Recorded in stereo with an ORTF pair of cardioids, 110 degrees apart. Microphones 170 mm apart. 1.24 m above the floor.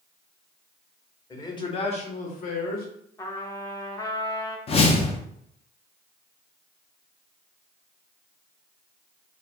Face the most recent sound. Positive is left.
turn(degrees=35)